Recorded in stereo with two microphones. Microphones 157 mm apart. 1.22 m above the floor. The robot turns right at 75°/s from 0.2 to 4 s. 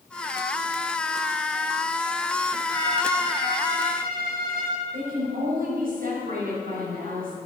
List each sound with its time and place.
2.7 s a violin: 160° left, 4.5 m; by 4.8 s 105° right, 4.5 m
4.9 s a woman speaking: 65° right (ahead or behind), 6 m